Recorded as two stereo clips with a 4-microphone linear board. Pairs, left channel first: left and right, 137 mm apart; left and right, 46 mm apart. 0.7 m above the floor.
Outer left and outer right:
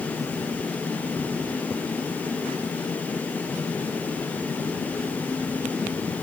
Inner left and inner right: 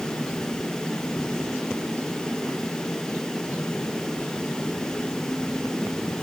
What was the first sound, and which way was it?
Only background noise.